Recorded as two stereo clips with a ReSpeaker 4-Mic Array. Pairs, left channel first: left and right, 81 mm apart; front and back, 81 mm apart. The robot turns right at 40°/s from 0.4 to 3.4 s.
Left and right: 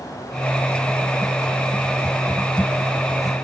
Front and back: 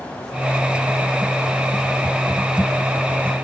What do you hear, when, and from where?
Only background noise.